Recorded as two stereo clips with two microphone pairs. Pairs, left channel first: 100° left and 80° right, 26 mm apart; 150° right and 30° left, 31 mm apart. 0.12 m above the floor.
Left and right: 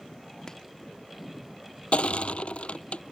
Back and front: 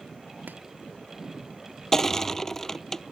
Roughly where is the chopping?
Ahead left.